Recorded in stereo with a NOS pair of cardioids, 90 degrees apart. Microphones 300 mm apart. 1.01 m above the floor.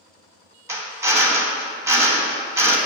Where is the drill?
10° right, 0.6 m.